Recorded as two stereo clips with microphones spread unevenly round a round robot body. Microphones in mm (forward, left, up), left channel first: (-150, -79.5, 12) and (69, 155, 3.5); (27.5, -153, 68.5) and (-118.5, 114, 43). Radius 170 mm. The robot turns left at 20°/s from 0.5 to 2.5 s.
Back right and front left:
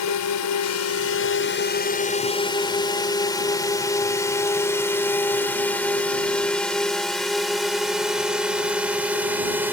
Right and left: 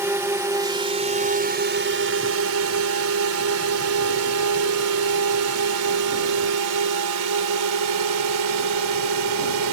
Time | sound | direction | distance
0.0 | a drone | 160° right | ?